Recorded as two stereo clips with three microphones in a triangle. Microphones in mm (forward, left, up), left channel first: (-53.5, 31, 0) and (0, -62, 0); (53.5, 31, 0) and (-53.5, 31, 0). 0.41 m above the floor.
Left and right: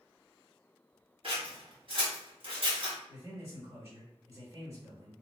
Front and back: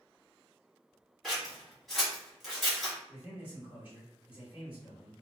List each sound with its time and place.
1.2 s scissors: 90° right, 1.5 m
3.1 s a man speaking: 115° right, 1.8 m